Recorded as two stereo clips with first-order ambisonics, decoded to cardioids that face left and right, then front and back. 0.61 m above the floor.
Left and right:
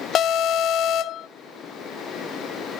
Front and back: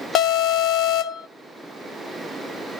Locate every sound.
0.1 s an alarm: 40° left, 0.7 m